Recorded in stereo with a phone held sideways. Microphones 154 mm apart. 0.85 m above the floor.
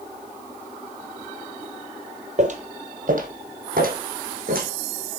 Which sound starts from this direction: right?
Footsteps, at 2.4 s.